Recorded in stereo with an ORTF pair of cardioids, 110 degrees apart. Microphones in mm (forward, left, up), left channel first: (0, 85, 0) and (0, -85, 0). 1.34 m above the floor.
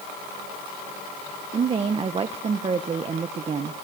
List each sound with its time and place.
1.5 s a woman speaking: 30° right, 0.6 m